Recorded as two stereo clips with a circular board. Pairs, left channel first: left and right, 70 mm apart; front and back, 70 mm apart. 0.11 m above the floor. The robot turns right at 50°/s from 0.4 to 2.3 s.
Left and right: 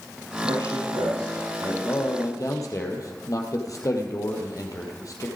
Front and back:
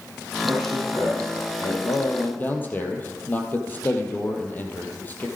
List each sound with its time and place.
0.4 s a man speaking: 125° right, 7.5 m; by 1.7 s 60° right, 7.5 m
1.8 s a man speaking: 35° left, 3.5 m; by 5.3 s 60° left, 3.5 m